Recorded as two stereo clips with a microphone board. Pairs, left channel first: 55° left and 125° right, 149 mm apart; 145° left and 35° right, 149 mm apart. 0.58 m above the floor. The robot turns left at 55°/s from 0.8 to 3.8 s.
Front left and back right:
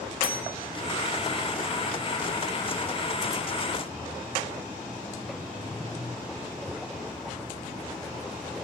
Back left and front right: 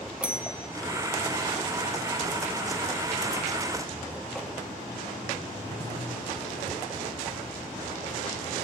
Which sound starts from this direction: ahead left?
A bell, at 0.2 s.